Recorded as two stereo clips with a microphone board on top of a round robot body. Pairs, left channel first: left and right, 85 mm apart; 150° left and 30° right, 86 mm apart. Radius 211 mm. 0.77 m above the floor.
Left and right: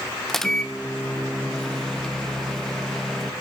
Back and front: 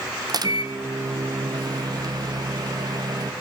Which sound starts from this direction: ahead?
A microwave, at 0.3 s.